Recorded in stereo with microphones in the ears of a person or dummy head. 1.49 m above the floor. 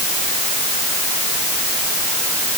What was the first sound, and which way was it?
Only background noise.